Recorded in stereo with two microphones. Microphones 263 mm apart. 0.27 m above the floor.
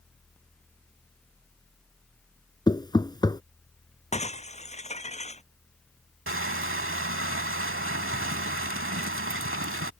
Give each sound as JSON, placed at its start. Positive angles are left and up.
{"t": 2.7, "sound": "knocking", "side_deg": 15}
{"t": 4.1, "sound": "breaking glass", "side_deg": 25}
{"t": 6.3, "sound": "crushing", "side_deg": -50}